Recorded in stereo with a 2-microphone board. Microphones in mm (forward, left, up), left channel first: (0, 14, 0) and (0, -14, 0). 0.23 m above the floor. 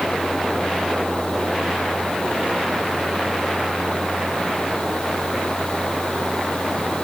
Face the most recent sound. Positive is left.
No sound to turn to.